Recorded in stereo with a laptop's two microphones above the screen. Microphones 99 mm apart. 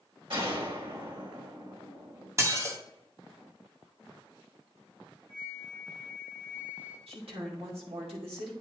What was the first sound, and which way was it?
A gunshot, 60° right (ahead or behind).